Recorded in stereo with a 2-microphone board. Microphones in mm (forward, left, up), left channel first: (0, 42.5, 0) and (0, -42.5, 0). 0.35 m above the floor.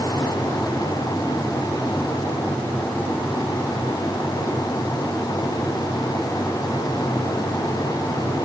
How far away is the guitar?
I don't hear a guitar.